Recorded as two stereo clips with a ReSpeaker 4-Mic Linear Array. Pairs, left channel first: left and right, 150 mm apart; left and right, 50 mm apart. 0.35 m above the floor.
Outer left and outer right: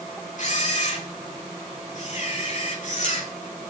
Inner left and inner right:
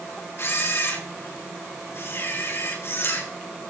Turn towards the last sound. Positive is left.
turn(degrees=55)  # may be behind; listen again after turning